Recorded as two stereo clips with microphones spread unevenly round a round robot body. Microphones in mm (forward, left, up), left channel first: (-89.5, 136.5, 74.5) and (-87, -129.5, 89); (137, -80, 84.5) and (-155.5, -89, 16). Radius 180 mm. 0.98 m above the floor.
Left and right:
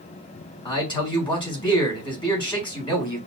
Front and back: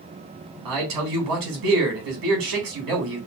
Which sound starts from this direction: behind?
A man speaking, at 0.7 s.